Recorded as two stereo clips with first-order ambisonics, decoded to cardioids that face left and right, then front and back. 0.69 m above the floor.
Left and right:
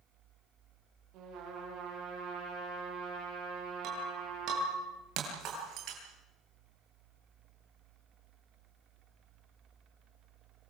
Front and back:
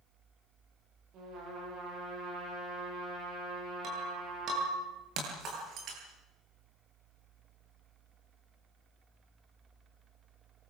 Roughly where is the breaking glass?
Behind right.